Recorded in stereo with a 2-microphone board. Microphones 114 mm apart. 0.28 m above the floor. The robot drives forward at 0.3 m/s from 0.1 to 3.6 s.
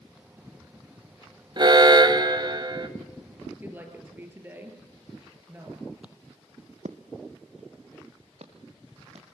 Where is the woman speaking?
20° right (ahead or behind), 5 m.